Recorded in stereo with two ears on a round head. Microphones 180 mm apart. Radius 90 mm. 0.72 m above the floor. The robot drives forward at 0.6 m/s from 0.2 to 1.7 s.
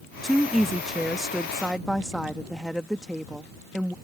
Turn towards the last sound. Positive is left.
turn(degrees=0)  # may be behind; listen again after turning